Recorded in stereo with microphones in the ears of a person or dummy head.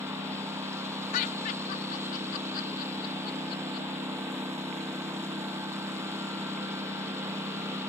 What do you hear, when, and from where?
0.0 s a lawn mower: 10° right (ahead or behind)
1.1 s laughter: 50° left (ahead or behind)